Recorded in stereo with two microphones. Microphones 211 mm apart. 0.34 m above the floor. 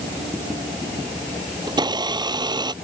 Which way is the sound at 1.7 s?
20° right (ahead or behind).